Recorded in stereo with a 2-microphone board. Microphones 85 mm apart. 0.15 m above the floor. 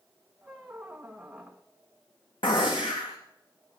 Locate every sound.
0.4 s a squeak: 10° right (ahead or behind), 1.4 m
2.4 s a gunshot: 85° left, 3 m